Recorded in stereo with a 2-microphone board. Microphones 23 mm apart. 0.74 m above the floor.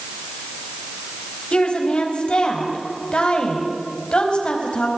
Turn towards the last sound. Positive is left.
turn(degrees=45)  # may be behind; listen again after turning